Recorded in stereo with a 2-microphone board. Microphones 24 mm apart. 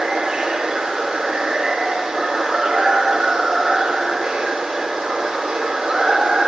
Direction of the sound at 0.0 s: 35° right (ahead or behind).